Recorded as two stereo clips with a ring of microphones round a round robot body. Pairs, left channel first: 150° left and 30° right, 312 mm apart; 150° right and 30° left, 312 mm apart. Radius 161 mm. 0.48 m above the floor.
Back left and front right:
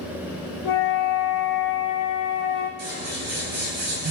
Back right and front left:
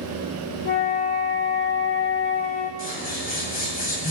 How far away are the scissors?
About 8.5 m.